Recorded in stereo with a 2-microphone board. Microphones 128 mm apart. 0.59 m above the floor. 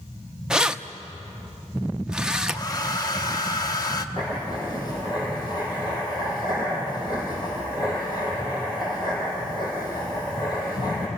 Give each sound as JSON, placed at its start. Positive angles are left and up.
{"t": 0.5, "sound": "keys jangling", "side_deg": -5, "distance_m": 0.6}
{"t": 2.5, "sound": "a hair dryer", "side_deg": 30, "distance_m": 1.0}
{"t": 4.2, "sound": "writing", "side_deg": 35, "distance_m": 6.0}